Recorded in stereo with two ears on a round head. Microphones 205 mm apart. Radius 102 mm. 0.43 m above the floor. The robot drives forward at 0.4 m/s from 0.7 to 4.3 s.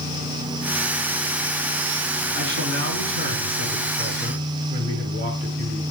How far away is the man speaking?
About 5 m.